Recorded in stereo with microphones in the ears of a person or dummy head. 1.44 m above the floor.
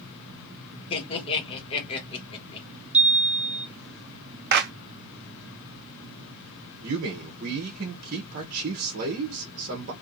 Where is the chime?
30° right (ahead or behind), 0.8 m.